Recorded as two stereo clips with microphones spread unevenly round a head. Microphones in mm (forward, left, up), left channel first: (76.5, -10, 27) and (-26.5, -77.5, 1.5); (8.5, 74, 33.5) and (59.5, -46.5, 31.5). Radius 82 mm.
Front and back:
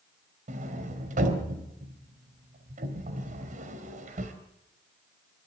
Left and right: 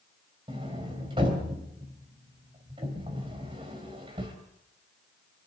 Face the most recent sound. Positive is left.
turn(degrees=-130)